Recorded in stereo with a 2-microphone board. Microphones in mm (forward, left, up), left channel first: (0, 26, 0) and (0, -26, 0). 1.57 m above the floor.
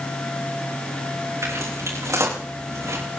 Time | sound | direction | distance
1.4 | footsteps | 75° right (ahead or behind) | 6.5 m